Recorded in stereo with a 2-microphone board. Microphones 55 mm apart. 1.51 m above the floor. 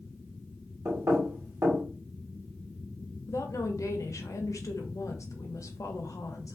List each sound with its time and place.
0.8 s knocking: 60° right (ahead or behind), 1.2 m
3.3 s a woman speaking: 70° left (ahead or behind), 0.6 m